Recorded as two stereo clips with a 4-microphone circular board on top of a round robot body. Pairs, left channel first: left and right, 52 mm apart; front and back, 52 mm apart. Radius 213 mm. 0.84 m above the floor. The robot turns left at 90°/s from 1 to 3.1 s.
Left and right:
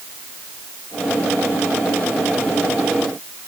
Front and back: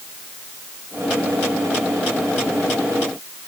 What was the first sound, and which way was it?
Only background noise.